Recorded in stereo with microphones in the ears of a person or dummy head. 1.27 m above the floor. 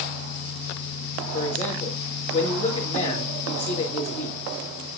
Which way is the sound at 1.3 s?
35° left (ahead or behind).